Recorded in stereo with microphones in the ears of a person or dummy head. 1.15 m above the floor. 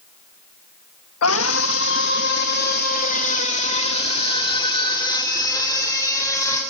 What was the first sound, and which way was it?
A scream, 85° left.